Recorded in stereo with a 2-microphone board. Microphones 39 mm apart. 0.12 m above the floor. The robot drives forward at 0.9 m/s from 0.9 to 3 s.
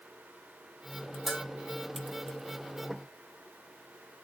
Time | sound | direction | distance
1.3 | a bell | 10° right (ahead or behind) | 1.0 m